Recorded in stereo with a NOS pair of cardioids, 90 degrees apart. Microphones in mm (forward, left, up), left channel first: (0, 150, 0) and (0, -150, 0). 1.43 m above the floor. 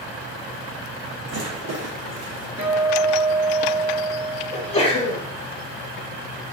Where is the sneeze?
20° left, 1.0 m.